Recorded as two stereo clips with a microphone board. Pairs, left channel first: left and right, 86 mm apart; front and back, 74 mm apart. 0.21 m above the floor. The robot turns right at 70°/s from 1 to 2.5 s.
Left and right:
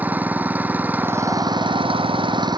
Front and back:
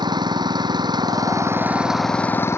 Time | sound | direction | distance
0.0 | an engine running | 160° right | ?